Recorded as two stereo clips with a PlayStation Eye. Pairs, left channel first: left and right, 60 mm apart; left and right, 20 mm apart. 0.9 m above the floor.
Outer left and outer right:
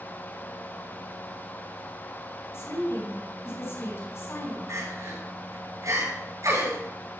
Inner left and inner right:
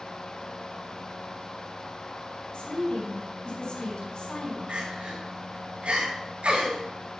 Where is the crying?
65° right (ahead or behind), 6.5 m.